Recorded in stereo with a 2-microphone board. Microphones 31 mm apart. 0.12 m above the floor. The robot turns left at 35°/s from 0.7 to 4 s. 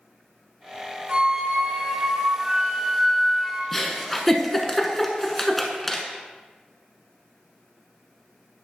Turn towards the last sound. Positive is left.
turn(degrees=5)  # may be behind; listen again after turning